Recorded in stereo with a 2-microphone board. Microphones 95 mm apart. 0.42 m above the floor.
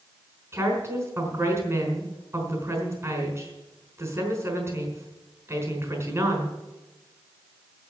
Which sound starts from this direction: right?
A woman speaking, at 0.5 s.